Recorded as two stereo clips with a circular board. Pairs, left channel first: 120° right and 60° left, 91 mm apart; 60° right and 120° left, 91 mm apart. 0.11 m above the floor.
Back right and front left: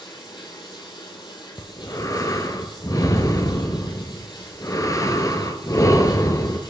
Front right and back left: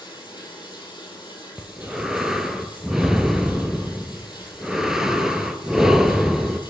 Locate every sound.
0.0 s running water: 95° right, 2 m
1.6 s breathing: 155° right, 0.6 m